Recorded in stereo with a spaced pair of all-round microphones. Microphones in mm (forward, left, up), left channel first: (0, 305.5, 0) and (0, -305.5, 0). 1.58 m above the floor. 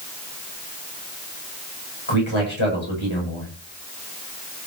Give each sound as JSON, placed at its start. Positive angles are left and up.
{"t": 2.1, "sound": "a man speaking", "side_deg": 55, "distance_m": 8.0}